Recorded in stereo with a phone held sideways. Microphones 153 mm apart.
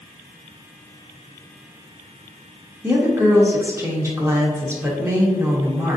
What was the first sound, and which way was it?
A woman speaking, 15° right (ahead or behind).